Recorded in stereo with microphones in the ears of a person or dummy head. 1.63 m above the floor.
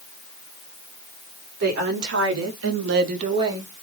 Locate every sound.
1.6 s a woman speaking: 55° right (ahead or behind), 1.6 m; by 3.7 s 15° right (ahead or behind), 1.0 m